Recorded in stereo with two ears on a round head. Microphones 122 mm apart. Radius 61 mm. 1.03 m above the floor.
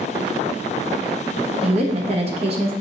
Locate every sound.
1.6 s a woman speaking: 45° right (ahead or behind), 0.8 m